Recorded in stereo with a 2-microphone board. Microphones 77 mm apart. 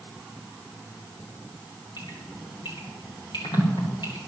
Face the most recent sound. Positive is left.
turn(degrees=85)